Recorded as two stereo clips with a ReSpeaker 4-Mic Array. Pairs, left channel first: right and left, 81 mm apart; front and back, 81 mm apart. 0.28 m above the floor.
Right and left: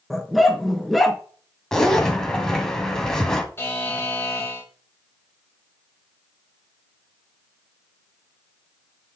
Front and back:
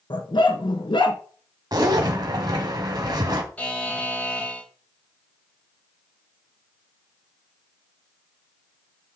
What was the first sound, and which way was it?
A dog barking, straight ahead.